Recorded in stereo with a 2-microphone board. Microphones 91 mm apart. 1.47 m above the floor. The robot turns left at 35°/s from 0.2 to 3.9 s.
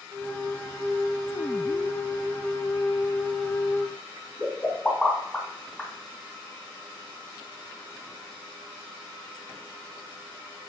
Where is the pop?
5° left (ahead or behind), 2.5 m.